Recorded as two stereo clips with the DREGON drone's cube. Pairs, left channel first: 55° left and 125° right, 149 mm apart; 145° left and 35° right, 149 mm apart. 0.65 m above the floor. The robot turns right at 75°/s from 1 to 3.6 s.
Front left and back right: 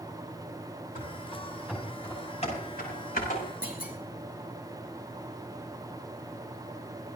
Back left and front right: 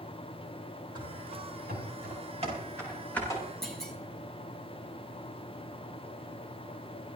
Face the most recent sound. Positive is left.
turn(degrees=60)